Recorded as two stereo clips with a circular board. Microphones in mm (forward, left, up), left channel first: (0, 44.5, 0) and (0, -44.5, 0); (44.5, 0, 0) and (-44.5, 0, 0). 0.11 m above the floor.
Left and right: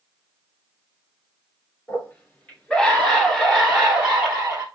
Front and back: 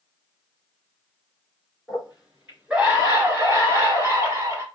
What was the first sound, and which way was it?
A scream, 100° left.